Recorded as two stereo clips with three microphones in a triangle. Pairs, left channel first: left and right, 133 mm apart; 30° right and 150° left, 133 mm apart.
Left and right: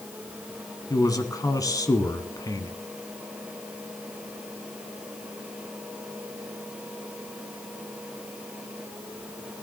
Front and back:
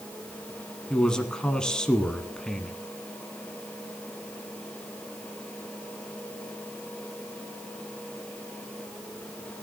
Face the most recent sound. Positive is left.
turn(degrees=50)